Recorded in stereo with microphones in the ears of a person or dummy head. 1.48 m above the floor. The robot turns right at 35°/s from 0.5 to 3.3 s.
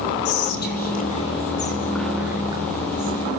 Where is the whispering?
55° left (ahead or behind), 3 m; by 3.2 s 40° right (ahead or behind), 3 m.